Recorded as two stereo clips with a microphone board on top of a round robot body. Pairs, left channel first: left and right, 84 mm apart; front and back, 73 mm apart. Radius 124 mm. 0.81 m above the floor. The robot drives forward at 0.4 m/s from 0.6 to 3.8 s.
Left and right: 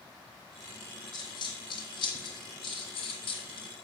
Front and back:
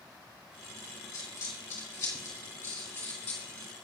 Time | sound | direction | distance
1.1 | a dropped coin | 55° left | 3 m